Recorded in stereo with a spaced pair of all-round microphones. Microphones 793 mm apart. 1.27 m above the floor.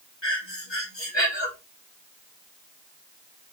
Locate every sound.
0.2 s breathing: 35° left (ahead or behind), 3.5 m